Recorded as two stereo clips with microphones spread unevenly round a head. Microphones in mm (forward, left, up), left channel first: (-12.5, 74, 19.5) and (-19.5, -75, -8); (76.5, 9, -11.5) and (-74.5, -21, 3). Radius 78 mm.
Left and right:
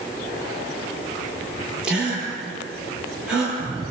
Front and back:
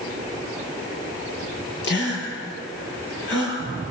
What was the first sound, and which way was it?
A gasp, 5° right.